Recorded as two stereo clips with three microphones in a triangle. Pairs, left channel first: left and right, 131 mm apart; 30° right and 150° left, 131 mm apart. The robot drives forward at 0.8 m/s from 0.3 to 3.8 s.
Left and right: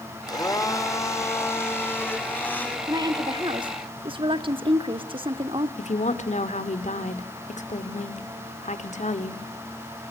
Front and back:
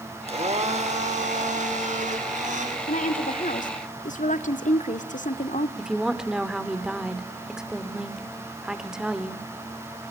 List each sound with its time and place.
0.3 s a blender: 140° left, 1.6 m; by 2.8 s 165° left, 3 m
2.9 s a woman speaking: 30° right, 2.5 m; by 5.7 s 40° right, 1.8 m
5.8 s a woman speaking: 65° left, 2 m